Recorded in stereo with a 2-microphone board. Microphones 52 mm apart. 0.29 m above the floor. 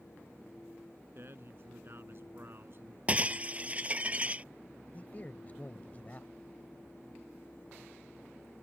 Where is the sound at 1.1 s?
50° right (ahead or behind).